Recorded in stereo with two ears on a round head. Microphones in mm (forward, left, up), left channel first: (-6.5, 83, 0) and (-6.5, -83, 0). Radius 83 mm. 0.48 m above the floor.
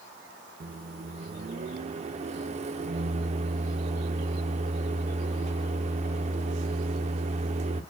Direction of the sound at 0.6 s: 35° right (ahead or behind).